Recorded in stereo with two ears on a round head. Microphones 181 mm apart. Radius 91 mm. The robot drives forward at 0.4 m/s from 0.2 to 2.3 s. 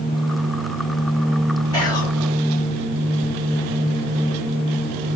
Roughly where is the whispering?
Centre.